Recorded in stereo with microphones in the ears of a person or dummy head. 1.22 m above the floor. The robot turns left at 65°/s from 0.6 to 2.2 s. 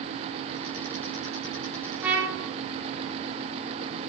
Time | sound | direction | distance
2.0 | a trumpet | centre (ahead or behind) | 0.5 m